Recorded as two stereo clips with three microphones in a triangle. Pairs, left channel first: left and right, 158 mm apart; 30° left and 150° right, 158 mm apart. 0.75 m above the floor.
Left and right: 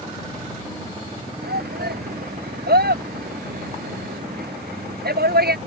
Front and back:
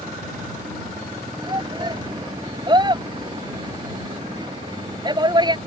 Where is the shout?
85° right.